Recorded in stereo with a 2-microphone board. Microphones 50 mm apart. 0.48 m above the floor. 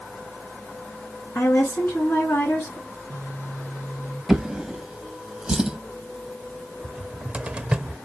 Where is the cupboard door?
20° right (ahead or behind), 0.6 m.